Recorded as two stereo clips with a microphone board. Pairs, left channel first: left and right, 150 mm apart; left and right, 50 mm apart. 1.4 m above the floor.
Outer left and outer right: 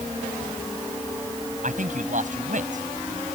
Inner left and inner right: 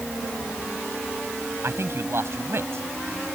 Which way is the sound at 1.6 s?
60° right (ahead or behind).